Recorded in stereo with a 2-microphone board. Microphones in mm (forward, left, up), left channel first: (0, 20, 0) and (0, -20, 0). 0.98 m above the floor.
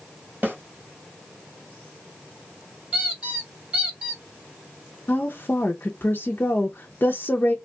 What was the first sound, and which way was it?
A snare drum, 45° right (ahead or behind).